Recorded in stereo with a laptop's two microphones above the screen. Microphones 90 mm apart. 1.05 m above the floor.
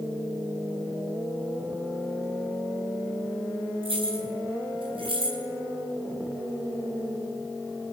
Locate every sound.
3.8 s keys jangling: 80° right, 9 m; by 5.4 s 75° right (ahead or behind), 7 m